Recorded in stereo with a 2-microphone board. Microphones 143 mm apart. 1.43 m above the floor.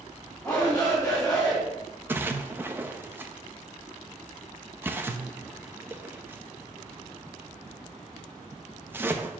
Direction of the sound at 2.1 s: 15° right (ahead or behind).